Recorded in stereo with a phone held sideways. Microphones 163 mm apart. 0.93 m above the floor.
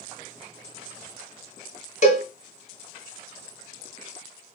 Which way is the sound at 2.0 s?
50° left (ahead or behind).